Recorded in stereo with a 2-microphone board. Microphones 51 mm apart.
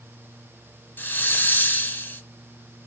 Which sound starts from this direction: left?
A hiss, at 1.0 s.